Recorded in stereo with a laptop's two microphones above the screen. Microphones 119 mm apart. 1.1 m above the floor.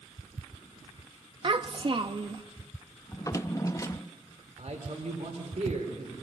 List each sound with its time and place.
1.4 s a child speaking: 40° right (ahead or behind), 0.6 m
3.1 s a drawer: 25° left (ahead or behind), 0.5 m
4.6 s a man speaking: 60° right (ahead or behind), 3.5 m